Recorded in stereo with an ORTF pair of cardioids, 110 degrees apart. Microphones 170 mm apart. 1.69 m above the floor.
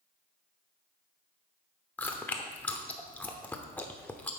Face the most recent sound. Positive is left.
turn(degrees=10)